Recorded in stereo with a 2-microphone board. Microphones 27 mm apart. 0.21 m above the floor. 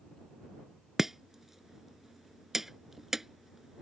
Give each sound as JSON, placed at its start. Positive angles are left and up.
{"t": 1.0, "sound": "chopping", "side_deg": -10}